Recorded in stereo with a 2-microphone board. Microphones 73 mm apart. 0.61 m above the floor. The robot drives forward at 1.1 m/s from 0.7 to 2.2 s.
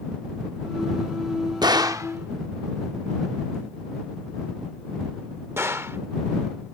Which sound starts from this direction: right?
A gunshot, at 1.6 s.